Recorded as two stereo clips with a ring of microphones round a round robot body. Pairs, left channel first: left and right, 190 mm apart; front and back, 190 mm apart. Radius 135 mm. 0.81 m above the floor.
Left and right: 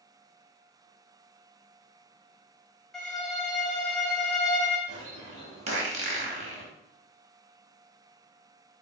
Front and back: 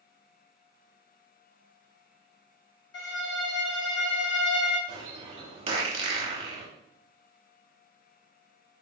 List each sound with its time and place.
2.9 s a violin: 5° left, 1.6 m
4.9 s a bird: 135° right, 0.7 m